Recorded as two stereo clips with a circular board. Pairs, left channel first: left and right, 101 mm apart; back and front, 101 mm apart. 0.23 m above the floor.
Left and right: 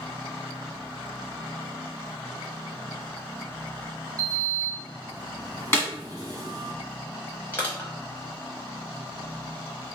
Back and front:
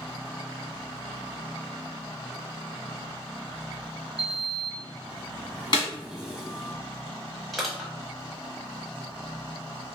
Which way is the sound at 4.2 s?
80° right.